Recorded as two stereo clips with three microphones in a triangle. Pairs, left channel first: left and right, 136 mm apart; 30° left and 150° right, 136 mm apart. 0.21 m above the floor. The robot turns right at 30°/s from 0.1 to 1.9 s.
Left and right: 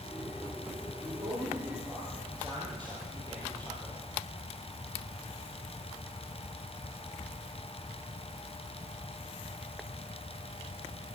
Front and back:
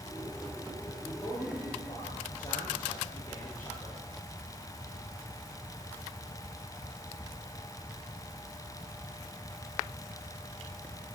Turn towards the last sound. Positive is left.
turn(degrees=-35)